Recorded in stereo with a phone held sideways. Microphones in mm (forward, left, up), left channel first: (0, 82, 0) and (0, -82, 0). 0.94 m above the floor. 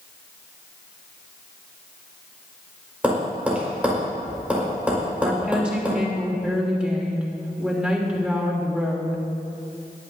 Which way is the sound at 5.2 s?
5° right (ahead or behind).